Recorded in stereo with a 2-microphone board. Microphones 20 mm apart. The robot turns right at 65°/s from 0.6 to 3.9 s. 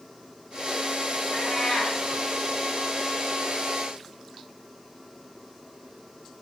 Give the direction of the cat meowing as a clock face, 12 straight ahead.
9 o'clock.